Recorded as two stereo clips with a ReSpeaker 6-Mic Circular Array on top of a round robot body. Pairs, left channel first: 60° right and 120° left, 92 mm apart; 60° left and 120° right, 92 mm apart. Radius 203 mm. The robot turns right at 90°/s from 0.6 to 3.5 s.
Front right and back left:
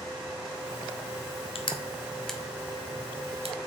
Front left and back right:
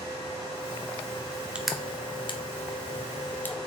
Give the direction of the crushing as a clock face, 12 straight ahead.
1 o'clock.